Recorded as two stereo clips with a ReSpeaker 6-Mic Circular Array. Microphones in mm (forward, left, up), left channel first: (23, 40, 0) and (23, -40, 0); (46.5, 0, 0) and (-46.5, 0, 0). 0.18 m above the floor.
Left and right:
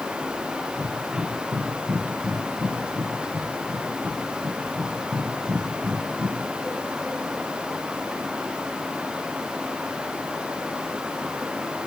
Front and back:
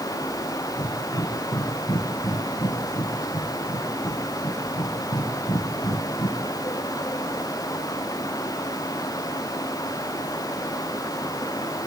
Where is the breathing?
35° right, 5 m.